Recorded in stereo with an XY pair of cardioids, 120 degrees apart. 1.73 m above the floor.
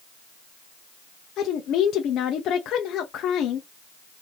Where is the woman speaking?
65° left, 0.7 m.